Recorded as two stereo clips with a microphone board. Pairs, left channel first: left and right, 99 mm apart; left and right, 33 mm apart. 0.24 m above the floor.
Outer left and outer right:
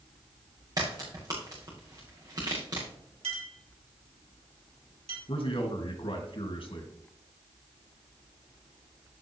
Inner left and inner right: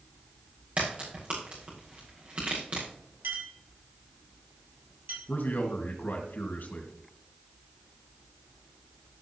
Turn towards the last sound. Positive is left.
turn(degrees=65)  # may be behind; listen again after turning